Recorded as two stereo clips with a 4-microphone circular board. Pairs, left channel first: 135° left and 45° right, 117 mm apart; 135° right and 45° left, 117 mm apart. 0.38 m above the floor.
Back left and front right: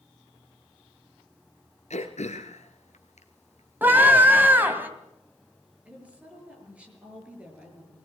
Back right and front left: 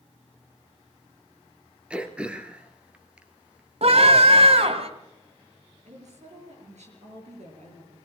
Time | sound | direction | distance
1.9 | throat clearing | 125° left | 1.6 m
3.8 | a scream | 25° left | 2.5 m
5.8 | a woman speaking | 35° left | 7 m